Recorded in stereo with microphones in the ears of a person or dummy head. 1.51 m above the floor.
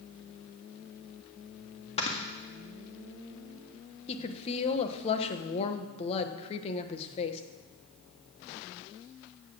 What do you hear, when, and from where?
2.0 s snoring: 35° left (ahead or behind), 1.8 m
4.1 s a woman speaking: 30° left (ahead or behind), 1.2 m